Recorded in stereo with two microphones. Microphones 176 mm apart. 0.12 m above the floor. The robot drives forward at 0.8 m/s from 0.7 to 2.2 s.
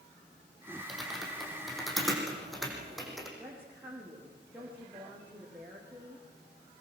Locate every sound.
0.9 s typing on a keyboard: centre (ahead or behind), 5 m
3.4 s a woman speaking: 10° right (ahead or behind), 5.5 m